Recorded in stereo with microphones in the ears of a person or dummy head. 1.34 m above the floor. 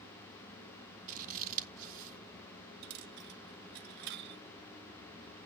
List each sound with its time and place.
1.1 s scissors: 50° right (ahead or behind), 1.7 m
2.8 s a dropped coin: 60° right (ahead or behind), 1.1 m